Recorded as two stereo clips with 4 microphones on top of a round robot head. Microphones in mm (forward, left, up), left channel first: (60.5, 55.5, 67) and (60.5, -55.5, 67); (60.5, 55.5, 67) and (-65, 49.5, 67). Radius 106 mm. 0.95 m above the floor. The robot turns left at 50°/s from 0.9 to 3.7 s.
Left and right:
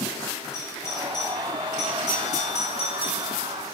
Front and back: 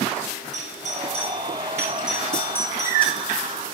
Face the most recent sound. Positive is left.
turn(degrees=20)